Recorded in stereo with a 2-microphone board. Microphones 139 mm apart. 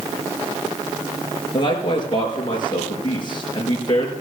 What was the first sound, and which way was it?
A man speaking, 35° left (ahead or behind).